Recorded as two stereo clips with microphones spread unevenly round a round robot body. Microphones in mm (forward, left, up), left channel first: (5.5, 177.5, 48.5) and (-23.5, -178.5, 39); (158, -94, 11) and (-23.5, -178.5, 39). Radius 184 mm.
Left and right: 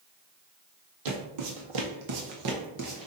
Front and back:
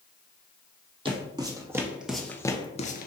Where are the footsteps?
90° right, 1.4 m; by 3.1 s 20° right, 0.7 m.